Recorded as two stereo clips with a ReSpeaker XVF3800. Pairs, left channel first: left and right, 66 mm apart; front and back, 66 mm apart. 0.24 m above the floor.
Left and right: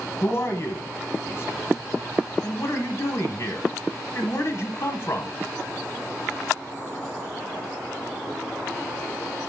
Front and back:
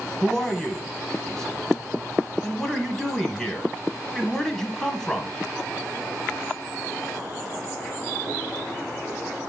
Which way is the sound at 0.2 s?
75° left.